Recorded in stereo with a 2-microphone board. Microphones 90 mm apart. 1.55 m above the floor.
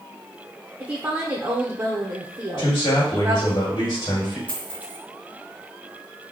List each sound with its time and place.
0.8 s a woman speaking: 30° right (ahead or behind), 0.7 m
2.6 s a man speaking: 65° left (ahead or behind), 2.0 m
4.5 s a dropped coin: 20° left (ahead or behind), 1.7 m